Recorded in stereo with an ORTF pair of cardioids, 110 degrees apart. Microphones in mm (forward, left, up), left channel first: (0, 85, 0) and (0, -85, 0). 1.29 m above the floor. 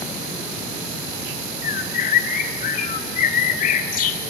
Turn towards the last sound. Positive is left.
turn(degrees=50)